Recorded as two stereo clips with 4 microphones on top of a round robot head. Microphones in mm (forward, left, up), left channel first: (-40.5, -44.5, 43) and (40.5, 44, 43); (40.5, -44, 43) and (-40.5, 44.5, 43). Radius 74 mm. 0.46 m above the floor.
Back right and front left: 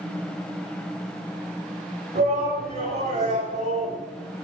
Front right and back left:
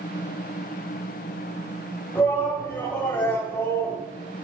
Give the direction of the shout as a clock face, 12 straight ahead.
11 o'clock.